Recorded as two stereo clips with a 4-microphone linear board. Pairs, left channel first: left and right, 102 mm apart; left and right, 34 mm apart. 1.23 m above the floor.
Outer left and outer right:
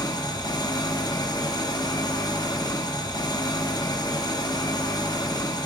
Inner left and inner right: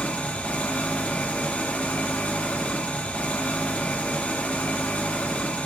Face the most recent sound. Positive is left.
turn(degrees=40)  # may be behind; listen again after turning